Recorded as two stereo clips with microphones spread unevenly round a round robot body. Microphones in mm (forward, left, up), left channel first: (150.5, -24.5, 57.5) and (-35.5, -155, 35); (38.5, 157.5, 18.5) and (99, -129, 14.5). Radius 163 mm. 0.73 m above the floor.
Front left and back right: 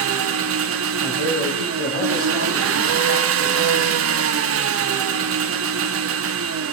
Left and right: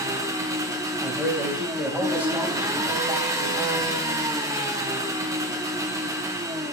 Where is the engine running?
160° right, 0.8 m.